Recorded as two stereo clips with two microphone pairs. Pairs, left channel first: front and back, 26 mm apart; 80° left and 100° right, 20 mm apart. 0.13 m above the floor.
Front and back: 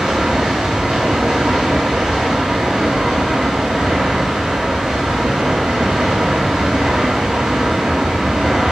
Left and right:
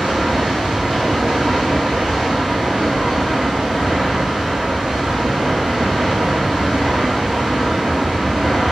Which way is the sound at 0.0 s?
125° right.